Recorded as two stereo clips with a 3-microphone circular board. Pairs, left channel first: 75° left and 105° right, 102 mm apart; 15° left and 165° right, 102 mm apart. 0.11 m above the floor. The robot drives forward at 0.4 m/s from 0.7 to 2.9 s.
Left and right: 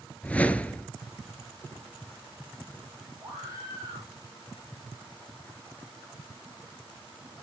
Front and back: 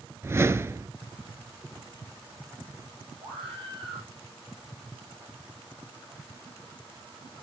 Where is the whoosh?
145° left, 0.5 m; by 0.9 s 150° left, 0.6 m.